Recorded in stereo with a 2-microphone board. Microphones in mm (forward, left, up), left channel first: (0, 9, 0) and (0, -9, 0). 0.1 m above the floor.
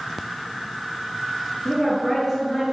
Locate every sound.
1.6 s a woman speaking: 5° right (ahead or behind), 1.4 m